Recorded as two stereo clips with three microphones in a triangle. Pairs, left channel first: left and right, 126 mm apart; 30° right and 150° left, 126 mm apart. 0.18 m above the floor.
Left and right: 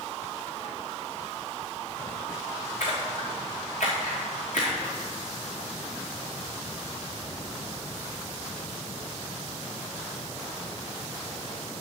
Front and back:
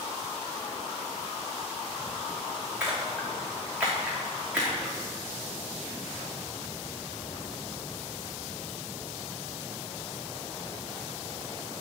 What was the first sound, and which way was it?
A splash, 70° left.